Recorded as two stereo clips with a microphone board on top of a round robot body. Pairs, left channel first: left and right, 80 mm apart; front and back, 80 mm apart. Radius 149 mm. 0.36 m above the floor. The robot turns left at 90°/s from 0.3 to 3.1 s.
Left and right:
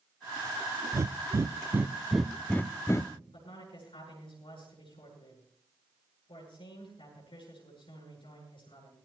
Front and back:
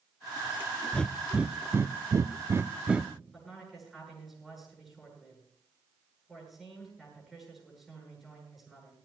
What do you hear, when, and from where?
0.9 s breathing: 65° right, 0.6 m; by 3.1 s 100° left, 0.6 m
3.3 s a man speaking: 90° left, 8.5 m